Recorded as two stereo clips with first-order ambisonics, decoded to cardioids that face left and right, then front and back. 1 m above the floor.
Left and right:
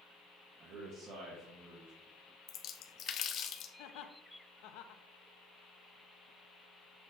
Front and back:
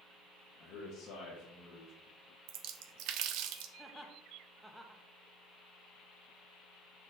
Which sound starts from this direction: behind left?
A splash, at 2.5 s.